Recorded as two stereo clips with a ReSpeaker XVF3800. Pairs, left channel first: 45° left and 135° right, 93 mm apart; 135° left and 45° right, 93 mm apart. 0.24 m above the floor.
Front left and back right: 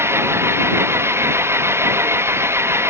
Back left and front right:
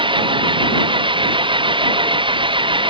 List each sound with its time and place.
0.0 s an engine running: 70° right